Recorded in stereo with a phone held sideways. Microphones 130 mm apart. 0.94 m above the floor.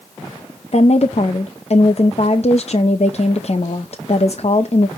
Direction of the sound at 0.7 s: 55° left (ahead or behind).